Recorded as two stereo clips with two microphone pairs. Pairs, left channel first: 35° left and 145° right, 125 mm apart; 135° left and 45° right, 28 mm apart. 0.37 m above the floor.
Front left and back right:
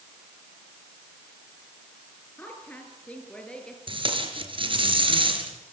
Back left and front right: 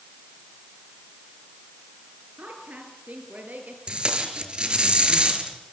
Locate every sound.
2.4 s a woman speaking: 40° right, 6.5 m; by 3.8 s 45° right, 6.5 m
3.9 s tape being pulled: 100° right, 4 m